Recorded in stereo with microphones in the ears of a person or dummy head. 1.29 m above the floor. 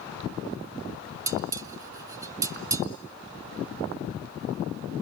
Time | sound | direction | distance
1.3 | dishes clattering | 20° right (ahead or behind) | 0.6 m